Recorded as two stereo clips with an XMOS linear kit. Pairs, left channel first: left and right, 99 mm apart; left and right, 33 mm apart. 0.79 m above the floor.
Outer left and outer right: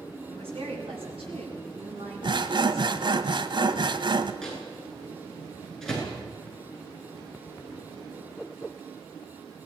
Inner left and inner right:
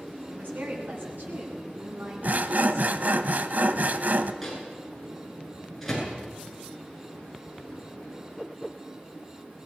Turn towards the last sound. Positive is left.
turn(degrees=5)  # may be behind; listen again after turning